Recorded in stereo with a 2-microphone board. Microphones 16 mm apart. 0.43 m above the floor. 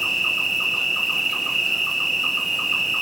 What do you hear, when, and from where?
0.0 s an insect: 5° right (ahead or behind), 0.7 m